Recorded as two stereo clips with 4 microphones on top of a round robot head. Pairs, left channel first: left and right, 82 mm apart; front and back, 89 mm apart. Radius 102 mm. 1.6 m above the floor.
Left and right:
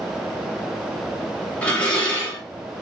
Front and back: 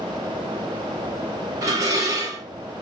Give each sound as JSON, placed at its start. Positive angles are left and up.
{"t": 1.6, "sound": "dishes clattering", "azimuth_deg": 155, "distance_m": 0.7}